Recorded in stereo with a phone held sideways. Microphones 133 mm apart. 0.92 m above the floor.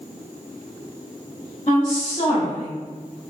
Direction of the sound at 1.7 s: 40° left (ahead or behind).